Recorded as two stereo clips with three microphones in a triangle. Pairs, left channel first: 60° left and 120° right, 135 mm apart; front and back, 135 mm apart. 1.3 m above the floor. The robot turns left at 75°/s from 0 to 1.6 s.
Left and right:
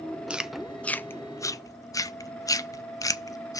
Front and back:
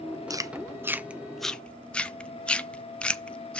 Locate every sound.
0.3 s chewing: 170° left, 0.5 m; by 3.6 s 70° left, 0.5 m